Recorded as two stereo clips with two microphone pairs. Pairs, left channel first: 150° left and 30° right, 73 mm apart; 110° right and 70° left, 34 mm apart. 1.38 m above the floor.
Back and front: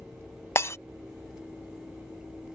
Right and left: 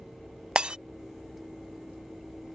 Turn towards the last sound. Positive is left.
turn(degrees=115)